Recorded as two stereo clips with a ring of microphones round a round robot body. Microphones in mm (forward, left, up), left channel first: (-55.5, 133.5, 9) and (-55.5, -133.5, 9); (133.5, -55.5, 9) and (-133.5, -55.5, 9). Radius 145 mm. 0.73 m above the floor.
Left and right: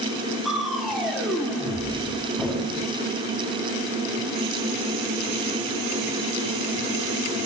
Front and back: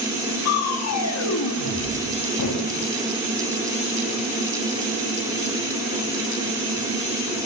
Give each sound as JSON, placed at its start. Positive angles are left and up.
{"t": 0.5, "sound": "crushing", "azimuth_deg": 0, "distance_m": 1.6}